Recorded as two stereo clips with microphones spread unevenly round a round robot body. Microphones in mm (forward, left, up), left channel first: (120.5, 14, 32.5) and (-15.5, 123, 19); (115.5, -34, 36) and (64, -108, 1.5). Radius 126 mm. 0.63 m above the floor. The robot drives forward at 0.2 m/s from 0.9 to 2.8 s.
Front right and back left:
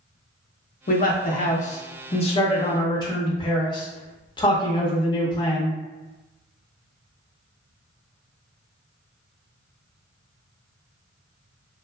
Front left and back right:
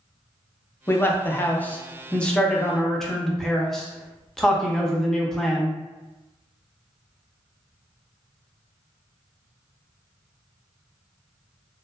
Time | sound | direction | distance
0.9 | a man speaking | 25° right | 0.7 m